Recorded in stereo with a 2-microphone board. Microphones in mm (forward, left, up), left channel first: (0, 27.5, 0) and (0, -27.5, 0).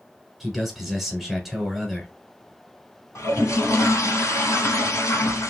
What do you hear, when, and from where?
0.4 s a man speaking: centre (ahead or behind), 1.4 m
3.1 s a toilet flushing: 60° left (ahead or behind), 1.1 m